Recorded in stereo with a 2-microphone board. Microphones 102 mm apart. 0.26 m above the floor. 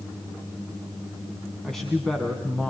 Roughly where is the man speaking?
Centre.